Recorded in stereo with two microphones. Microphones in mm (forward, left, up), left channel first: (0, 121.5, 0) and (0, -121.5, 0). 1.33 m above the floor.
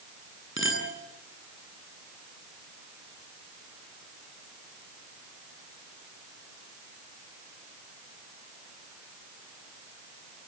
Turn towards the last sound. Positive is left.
turn(degrees=55)  # may be behind; listen again after turning